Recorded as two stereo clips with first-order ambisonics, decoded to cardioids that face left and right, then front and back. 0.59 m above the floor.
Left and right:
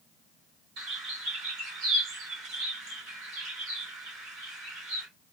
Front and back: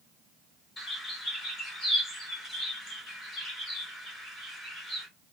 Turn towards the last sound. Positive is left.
turn(degrees=-75)